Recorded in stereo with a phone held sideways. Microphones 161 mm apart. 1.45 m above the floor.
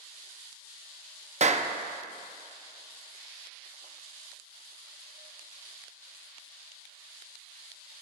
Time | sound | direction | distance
1.4 | a clap | 45° right (ahead or behind) | 0.6 m